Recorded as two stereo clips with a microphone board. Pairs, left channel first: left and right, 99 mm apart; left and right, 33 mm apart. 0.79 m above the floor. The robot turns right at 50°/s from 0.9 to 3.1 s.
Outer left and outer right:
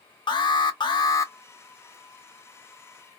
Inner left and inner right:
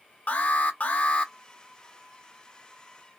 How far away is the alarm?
About 0.6 m.